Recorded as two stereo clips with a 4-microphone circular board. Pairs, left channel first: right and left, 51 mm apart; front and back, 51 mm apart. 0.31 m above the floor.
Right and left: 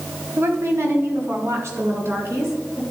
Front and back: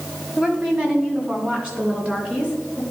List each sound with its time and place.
0.4 s a woman speaking: 115° left, 1.7 m; by 2.8 s 110° left, 3.5 m